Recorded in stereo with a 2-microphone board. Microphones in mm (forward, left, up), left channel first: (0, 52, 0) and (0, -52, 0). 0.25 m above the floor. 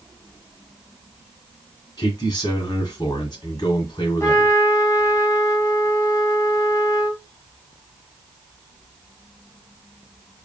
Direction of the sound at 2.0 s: 45° left (ahead or behind).